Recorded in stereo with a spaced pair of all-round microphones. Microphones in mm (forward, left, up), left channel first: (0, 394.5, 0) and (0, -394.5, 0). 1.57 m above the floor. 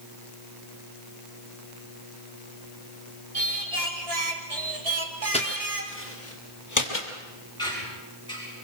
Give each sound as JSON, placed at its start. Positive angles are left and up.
{"t": 3.3, "sound": "singing", "side_deg": -45, "distance_m": 2.0}
{"t": 5.3, "sound": "footsteps", "side_deg": 10, "distance_m": 2.0}
{"t": 7.6, "sound": "a squeak", "side_deg": 5, "distance_m": 8.5}